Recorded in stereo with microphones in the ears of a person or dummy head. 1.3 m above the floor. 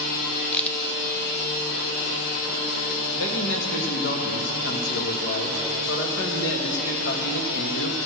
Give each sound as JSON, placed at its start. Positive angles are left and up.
{"t": 0.5, "sound": "a crack", "side_deg": 10, "distance_m": 0.7}
{"t": 3.1, "sound": "a man speaking", "side_deg": 70, "distance_m": 1.6}